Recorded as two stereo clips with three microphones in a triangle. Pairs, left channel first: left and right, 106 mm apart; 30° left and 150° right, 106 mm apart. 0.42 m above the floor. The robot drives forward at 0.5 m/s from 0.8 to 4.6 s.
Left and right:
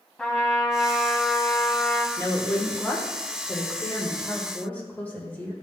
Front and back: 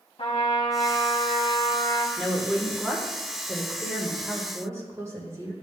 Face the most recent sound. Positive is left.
turn(degrees=160)